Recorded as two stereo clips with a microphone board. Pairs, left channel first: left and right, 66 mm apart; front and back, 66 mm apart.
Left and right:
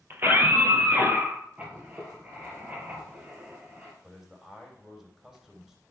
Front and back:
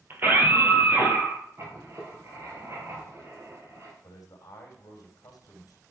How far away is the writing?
About 3 m.